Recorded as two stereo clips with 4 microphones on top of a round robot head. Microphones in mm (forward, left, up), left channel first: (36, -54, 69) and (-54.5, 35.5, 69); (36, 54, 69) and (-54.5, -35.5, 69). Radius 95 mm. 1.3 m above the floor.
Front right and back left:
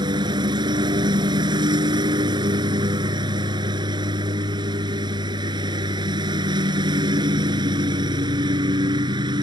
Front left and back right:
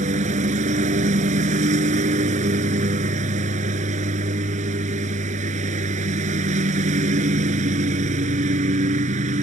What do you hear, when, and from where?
0.0 s a lawn mower: 165° right